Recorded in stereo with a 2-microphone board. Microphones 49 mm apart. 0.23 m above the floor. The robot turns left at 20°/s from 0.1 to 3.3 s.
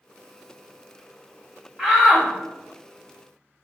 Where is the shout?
10° right (ahead or behind), 1.1 m; by 2.3 s 5° right (ahead or behind), 1.1 m.